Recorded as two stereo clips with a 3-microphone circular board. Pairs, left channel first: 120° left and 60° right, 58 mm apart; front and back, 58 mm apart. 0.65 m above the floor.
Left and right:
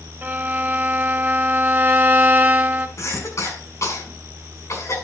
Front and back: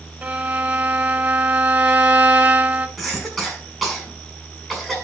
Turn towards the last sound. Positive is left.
turn(degrees=90)